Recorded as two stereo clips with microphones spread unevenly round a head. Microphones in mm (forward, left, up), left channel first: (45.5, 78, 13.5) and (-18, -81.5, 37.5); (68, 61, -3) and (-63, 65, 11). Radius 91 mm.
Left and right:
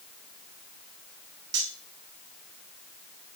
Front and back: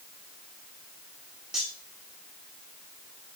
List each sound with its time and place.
1.5 s cutlery clinking: 95° right, 2 m